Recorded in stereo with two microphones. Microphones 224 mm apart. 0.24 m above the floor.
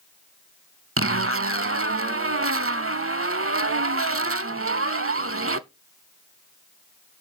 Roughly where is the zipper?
Right.